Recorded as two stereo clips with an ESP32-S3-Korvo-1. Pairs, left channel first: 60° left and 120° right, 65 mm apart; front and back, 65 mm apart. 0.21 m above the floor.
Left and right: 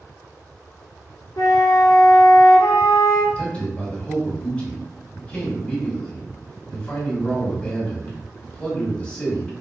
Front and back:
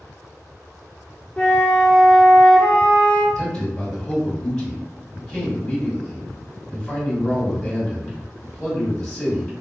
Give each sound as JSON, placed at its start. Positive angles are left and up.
{"t": 1.4, "sound": "a flute", "azimuth_deg": 70, "distance_m": 1.0}
{"t": 3.4, "sound": "a man speaking", "azimuth_deg": 55, "distance_m": 1.7}